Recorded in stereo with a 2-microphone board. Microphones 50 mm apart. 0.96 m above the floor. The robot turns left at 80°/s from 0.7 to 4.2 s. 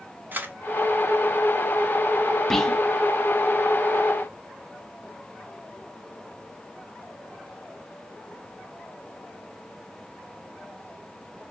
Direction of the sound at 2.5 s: 5° left (ahead or behind).